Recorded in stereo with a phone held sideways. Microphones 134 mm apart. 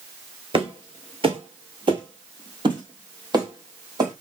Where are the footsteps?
40° right (ahead or behind), 1.1 m; by 4.1 s 30° right (ahead or behind), 2 m.